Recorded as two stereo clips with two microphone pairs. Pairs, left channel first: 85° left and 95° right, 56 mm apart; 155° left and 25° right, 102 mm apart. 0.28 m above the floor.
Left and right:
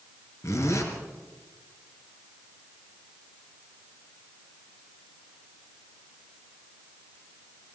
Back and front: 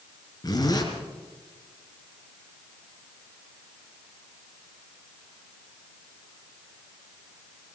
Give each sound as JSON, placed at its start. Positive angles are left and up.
{"t": 0.4, "sound": "a zipper", "azimuth_deg": 110, "distance_m": 3.5}